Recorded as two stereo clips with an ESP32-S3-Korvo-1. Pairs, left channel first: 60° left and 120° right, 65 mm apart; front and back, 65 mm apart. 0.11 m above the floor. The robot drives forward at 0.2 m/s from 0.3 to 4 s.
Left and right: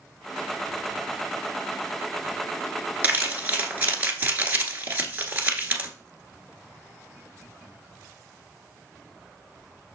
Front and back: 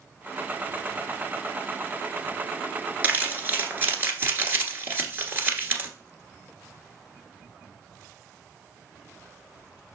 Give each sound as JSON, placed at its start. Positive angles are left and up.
{"t": 3.0, "sound": "crumpling", "azimuth_deg": -150, "distance_m": 1.3}